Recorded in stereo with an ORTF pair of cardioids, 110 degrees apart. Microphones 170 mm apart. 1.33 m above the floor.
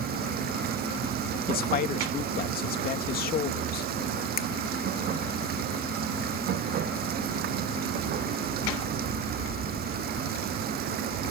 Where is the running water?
65° right.